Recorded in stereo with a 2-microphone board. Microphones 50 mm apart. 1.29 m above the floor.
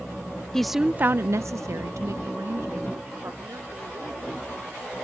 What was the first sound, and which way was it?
A woman speaking, 10° left (ahead or behind).